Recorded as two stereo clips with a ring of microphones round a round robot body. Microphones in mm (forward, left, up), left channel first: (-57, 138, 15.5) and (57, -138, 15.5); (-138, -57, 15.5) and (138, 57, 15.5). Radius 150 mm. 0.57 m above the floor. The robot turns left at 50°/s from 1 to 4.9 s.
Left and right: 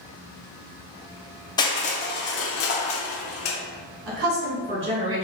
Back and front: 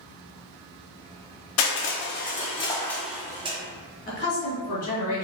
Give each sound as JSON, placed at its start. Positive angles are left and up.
{"t": 1.6, "sound": "crushing", "azimuth_deg": -175, "distance_m": 0.6}
{"t": 4.1, "sound": "a woman speaking", "azimuth_deg": -100, "distance_m": 1.8}